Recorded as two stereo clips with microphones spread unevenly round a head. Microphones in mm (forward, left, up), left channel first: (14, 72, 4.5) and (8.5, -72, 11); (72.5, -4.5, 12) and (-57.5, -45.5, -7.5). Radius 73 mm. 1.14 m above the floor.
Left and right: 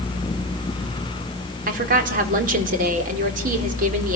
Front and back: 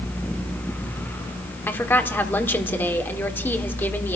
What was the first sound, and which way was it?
A woman speaking, 60° right.